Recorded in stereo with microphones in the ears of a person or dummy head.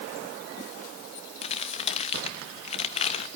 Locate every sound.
1.4 s crumpling: 35° left (ahead or behind), 1.2 m